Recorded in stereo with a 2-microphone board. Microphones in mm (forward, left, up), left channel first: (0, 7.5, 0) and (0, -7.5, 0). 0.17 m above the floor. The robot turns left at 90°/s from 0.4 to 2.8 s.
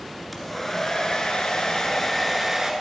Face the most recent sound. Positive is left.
turn(degrees=-40)